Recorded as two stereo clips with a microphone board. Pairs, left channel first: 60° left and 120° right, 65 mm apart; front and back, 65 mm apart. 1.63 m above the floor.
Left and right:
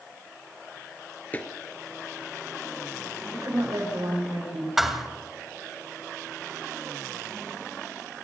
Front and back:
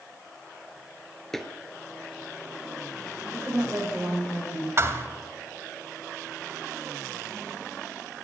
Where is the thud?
155° left, 1.9 m.